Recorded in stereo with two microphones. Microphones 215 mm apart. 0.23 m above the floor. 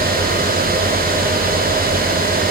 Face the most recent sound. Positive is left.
No sound to turn to.